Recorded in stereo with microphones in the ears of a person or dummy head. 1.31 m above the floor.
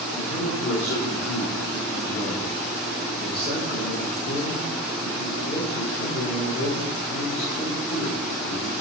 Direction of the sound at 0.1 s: 75° left (ahead or behind).